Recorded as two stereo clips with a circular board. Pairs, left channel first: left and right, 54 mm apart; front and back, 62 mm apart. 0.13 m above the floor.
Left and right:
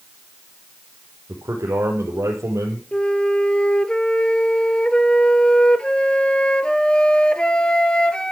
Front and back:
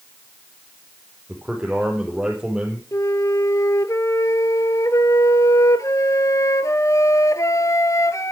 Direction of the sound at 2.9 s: 20° left.